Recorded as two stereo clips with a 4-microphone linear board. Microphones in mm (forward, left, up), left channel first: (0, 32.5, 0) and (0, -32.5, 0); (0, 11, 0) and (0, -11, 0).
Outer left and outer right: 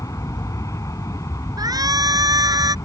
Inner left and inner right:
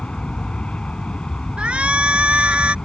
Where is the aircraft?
55° left (ahead or behind).